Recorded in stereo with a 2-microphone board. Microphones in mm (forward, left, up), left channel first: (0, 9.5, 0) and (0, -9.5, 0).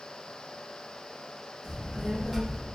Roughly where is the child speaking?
Right.